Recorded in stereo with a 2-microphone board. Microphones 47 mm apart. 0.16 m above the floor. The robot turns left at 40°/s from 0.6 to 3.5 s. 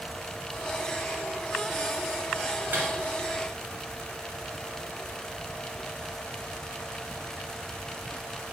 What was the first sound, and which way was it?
A microwave, 50° right (ahead or behind).